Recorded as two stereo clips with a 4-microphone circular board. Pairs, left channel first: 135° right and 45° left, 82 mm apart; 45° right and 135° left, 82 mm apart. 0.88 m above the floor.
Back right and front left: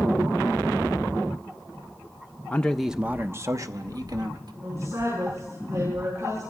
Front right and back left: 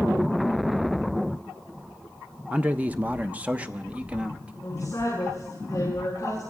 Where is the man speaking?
175° right, 0.6 m; by 4.5 s 60° left, 1.4 m.